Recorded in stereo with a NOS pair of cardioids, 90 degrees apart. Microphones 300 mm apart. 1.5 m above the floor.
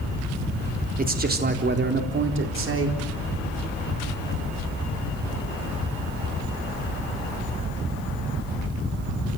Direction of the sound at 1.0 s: 25° right.